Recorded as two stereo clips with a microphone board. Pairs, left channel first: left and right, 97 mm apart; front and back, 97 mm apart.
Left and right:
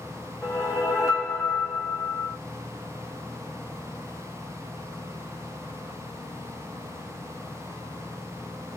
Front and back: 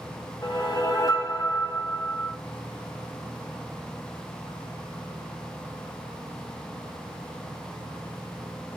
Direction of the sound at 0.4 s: 40° left.